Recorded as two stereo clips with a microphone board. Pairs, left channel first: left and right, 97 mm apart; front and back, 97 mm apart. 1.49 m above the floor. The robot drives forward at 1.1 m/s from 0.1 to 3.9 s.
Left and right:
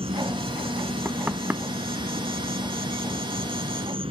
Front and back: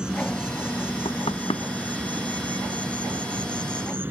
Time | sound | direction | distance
0.0 | an insect | 100° right | ?
1.1 | knocking | 20° right | ?